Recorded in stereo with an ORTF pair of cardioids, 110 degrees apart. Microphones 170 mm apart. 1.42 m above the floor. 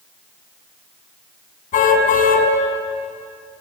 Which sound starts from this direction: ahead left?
A car horn, at 1.7 s.